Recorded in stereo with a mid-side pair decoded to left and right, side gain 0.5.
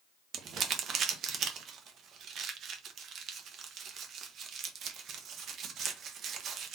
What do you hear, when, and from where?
0.3 s crumpling: 60° right, 1.1 m